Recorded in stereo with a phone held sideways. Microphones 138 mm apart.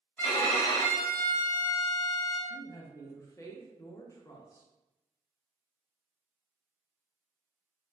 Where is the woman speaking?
25° left (ahead or behind), 0.6 m.